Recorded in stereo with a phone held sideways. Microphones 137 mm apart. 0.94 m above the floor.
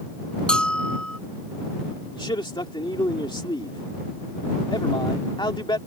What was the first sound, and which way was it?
A bell, 5° left (ahead or behind).